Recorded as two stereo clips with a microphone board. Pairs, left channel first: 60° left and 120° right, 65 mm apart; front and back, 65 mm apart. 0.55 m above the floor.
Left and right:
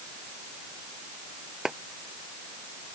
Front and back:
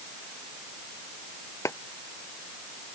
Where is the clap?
40° right.